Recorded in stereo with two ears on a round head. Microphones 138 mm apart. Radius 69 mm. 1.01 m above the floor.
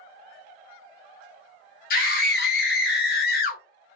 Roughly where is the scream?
Left.